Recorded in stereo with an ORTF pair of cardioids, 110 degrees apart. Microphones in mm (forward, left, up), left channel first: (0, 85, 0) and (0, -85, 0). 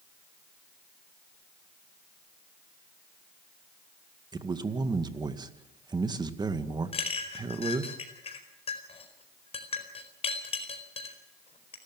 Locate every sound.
4.3 s a man speaking: 25° right, 2 m
6.9 s a clink: 35° left, 4.5 m